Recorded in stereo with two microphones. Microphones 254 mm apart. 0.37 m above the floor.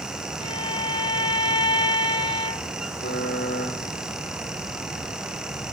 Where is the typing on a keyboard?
60° left (ahead or behind), 8.5 m.